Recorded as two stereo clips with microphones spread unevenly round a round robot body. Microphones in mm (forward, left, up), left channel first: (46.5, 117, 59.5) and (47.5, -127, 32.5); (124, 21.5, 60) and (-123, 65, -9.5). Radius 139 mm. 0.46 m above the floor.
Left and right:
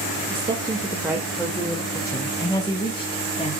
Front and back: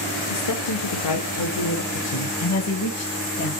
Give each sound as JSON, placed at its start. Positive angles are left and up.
{"t": 0.3, "sound": "a woman speaking", "azimuth_deg": -35, "distance_m": 1.4}